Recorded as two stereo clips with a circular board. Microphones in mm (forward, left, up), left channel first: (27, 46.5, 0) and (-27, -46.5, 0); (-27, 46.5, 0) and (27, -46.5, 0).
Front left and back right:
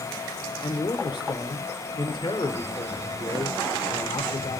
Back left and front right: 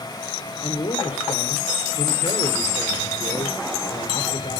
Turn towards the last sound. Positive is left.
turn(degrees=100)